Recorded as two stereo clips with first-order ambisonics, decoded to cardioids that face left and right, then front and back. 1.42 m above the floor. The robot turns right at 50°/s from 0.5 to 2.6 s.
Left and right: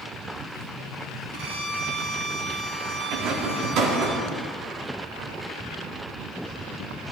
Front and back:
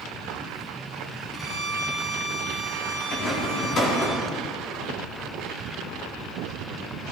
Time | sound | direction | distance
1.3 | a violin | 105° right | 2.5 m
3.1 | a rattle | 55° right | 3.5 m